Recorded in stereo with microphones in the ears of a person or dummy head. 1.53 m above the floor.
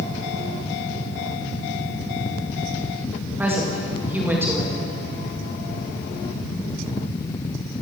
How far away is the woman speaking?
About 2.5 m.